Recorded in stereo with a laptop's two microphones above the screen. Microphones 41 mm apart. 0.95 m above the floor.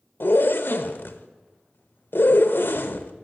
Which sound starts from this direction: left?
A zipper, at 0.2 s.